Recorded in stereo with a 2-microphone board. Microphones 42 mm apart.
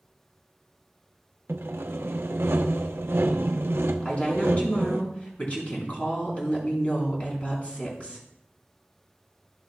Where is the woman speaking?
30° left (ahead or behind), 5.5 m.